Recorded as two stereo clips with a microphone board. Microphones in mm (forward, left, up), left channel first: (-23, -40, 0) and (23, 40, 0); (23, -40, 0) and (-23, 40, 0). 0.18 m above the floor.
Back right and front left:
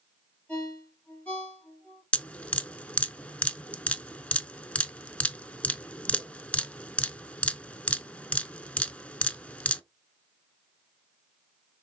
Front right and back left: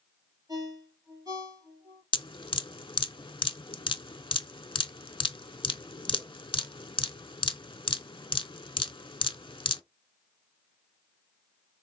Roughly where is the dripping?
Ahead right.